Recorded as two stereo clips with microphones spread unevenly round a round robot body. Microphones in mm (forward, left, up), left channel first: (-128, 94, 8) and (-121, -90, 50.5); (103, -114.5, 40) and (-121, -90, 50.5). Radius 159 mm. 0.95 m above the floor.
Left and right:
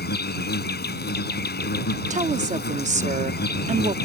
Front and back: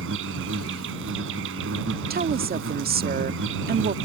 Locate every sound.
0.0 s an insect: 120° left
2.1 s a woman speaking: 140° right